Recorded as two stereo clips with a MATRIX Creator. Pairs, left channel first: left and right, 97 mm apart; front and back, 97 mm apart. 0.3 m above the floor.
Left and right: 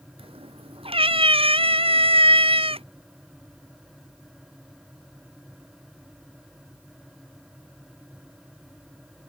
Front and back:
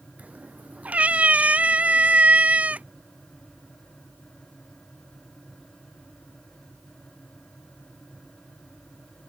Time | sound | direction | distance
0.2 | a cat meowing | 105° right | ?